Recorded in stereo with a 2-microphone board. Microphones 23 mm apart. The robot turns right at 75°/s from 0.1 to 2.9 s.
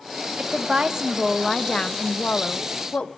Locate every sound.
0.4 s a woman speaking: 70° right, 0.6 m; by 3.1 s 120° left, 0.6 m